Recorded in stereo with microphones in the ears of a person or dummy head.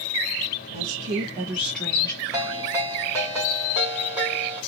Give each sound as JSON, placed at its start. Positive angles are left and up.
{"t": 0.7, "sound": "a woman speaking", "side_deg": -50, "distance_m": 1.2}
{"t": 2.3, "sound": "a ringtone", "side_deg": -15, "distance_m": 2.5}